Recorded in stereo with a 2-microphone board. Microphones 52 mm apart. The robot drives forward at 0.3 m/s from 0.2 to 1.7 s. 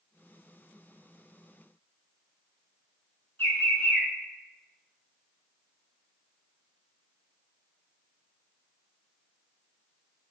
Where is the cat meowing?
No cat meowing in this recording.